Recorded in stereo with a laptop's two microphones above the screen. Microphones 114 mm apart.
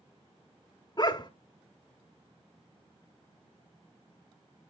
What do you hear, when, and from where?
1.0 s a dog barking: 40° left (ahead or behind), 1.0 m